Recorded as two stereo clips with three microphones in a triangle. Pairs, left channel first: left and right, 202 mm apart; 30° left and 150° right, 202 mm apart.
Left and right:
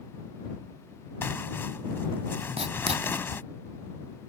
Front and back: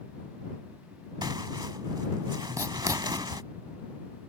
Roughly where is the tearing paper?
Behind.